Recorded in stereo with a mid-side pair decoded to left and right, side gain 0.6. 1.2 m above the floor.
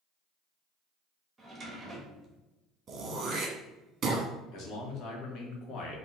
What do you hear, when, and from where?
1.4 s a drawer: 25° right, 1.0 m
2.9 s throat clearing: 40° right, 1.0 m
4.5 s a man speaking: 60° left, 1.1 m